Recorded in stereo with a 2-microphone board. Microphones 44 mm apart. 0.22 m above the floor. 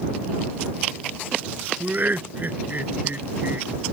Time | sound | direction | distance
1.8 | laughter | 45° right (ahead or behind) | ?